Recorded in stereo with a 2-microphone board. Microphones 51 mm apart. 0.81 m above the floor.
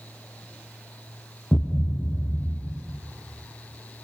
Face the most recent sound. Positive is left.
turn(degrees=5)  # may be behind; listen again after turning